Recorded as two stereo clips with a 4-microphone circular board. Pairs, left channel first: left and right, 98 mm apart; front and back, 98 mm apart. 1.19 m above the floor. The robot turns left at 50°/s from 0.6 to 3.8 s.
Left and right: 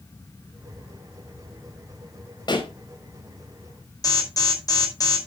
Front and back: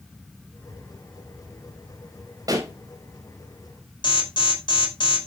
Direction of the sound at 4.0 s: 40° left.